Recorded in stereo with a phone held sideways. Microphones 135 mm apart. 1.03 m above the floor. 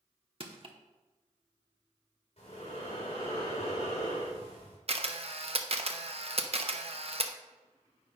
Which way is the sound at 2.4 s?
50° left (ahead or behind).